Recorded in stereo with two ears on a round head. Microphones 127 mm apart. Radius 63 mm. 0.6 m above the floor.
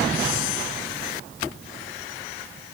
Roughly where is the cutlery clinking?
No cutlery clinking in this recording.